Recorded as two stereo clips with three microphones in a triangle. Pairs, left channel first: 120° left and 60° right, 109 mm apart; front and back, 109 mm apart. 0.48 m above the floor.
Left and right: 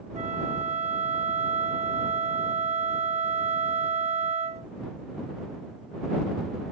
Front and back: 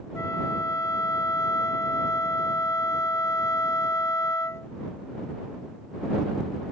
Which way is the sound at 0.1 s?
65° right.